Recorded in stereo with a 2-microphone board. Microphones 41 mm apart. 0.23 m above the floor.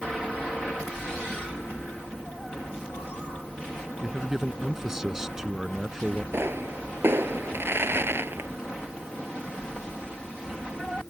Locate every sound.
4.0 s a man speaking: 10° right (ahead or behind)
6.3 s a pop: 70° right (ahead or behind)